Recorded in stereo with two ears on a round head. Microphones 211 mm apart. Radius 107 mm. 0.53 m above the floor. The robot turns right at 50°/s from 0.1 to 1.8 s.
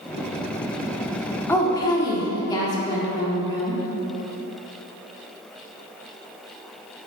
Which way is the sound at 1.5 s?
10° left (ahead or behind).